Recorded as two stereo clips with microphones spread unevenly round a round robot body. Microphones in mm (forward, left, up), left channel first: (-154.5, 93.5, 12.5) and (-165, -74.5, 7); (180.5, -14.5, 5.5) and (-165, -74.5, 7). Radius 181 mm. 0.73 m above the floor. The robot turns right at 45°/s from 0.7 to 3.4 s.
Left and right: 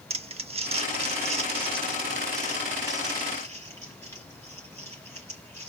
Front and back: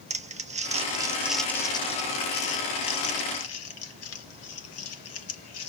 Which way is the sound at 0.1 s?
110° right.